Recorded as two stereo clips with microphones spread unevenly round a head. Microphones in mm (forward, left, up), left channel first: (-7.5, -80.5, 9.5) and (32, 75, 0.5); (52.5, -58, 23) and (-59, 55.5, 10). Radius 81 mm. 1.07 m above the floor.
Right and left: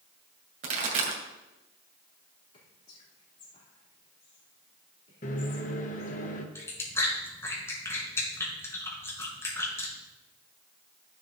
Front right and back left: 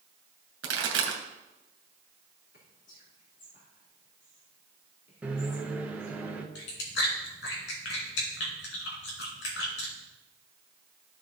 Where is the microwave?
145° right, 1.0 m.